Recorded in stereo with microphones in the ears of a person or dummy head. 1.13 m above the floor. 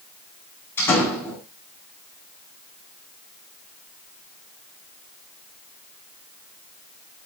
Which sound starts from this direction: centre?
A door slam, at 0.8 s.